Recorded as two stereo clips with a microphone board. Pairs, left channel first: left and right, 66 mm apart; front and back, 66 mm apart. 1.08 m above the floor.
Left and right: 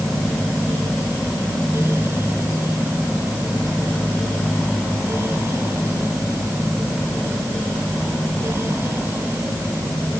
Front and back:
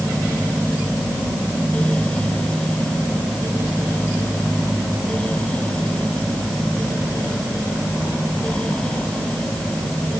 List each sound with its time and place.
Only background noise.